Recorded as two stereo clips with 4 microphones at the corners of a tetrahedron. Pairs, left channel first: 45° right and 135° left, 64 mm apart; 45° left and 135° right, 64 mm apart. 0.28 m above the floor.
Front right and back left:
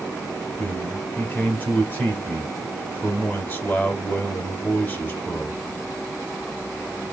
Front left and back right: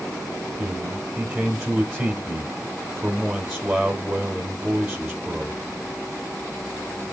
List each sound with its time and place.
0.6 s a man speaking: 65° right, 1.5 m